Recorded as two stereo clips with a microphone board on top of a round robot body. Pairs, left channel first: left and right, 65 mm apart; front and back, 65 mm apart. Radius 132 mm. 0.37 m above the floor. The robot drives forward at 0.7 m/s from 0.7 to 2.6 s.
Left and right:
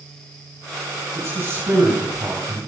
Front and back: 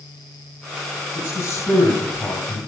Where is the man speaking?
35° right, 5 m; by 2.6 s 45° right, 4 m.